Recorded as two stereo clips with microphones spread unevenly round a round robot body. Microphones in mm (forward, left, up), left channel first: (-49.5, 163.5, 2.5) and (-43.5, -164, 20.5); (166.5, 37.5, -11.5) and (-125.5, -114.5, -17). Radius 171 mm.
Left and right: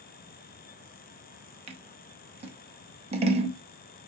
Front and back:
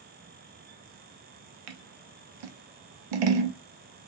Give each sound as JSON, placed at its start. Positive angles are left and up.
{"t": 1.7, "sound": "scissors", "azimuth_deg": -160, "distance_m": 0.6}